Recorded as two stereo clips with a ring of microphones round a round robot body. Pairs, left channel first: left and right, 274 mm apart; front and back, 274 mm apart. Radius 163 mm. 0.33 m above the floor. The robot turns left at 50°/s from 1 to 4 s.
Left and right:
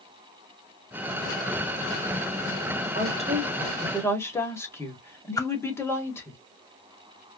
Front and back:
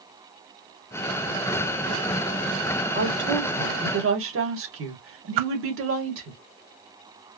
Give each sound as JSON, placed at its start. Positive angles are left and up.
{"t": 3.0, "sound": "a woman speaking", "azimuth_deg": -140, "distance_m": 2.0}
{"t": 5.4, "sound": "a whoosh", "azimuth_deg": 170, "distance_m": 0.5}